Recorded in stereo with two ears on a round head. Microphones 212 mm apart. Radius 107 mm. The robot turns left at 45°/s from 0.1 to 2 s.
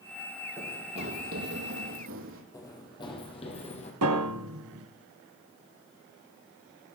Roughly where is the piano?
Right.